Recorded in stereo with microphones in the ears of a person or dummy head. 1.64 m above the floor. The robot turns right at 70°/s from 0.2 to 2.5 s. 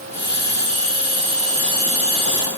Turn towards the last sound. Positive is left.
No sound to turn to.